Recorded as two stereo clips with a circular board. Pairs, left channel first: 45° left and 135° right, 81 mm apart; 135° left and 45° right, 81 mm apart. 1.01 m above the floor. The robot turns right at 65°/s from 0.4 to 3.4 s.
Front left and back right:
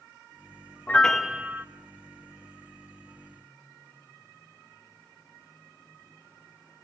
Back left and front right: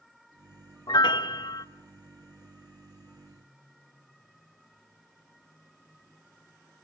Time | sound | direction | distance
0.9 | a piano | 115° left | 1.0 m